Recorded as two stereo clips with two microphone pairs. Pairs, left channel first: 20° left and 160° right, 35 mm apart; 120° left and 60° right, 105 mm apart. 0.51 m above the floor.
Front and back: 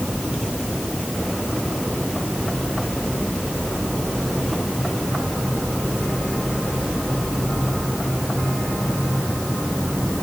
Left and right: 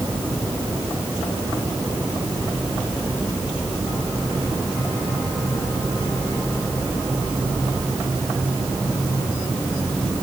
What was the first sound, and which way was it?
Only background noise.